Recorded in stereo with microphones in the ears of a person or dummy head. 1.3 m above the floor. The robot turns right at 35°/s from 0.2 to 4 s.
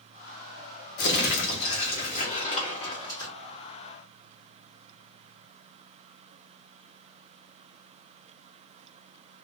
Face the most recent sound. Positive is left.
turn(degrees=-175)